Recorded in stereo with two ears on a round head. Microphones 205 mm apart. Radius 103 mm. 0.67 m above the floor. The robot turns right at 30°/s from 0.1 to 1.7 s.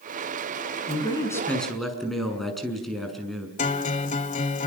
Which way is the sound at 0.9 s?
25° left (ahead or behind).